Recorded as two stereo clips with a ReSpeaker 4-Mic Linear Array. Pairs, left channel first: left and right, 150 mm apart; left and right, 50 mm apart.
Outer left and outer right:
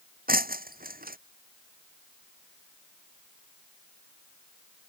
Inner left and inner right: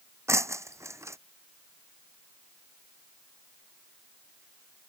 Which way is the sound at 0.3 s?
75° right (ahead or behind).